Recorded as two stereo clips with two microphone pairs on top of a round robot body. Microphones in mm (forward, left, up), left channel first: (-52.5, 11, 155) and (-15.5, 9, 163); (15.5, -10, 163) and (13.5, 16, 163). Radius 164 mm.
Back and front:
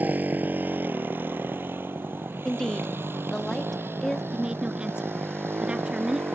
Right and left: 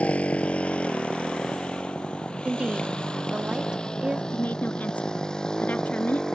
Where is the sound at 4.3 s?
70° right.